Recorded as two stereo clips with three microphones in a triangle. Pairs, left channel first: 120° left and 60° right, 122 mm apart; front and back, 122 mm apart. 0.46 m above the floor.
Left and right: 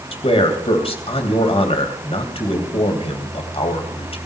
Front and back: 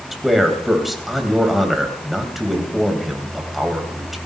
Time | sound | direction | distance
0.1 | a man speaking | 90° left | 3 m